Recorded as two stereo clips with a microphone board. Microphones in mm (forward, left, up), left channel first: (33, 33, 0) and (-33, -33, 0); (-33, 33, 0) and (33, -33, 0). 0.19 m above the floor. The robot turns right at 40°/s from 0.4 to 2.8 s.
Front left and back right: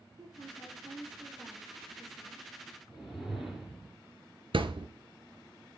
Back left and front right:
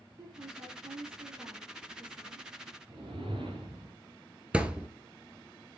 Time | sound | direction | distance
0.2 | a woman speaking | 90° right | 6.5 m
2.9 | a whoosh | 45° right | 3 m
4.5 | a thud | 125° right | 0.9 m